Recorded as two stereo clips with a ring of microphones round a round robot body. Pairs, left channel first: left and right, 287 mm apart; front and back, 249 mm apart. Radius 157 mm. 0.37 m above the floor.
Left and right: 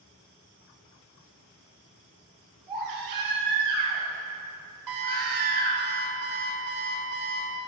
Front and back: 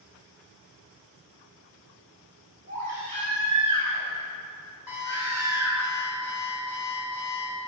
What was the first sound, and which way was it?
A baby crying, 110° right.